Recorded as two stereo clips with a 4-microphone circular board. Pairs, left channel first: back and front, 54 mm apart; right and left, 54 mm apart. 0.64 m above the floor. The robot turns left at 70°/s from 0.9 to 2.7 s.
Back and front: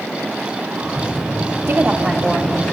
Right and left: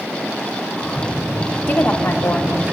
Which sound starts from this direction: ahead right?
A woman speaking, at 1.7 s.